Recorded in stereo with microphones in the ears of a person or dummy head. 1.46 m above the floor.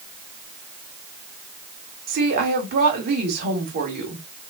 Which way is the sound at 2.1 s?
45° right (ahead or behind).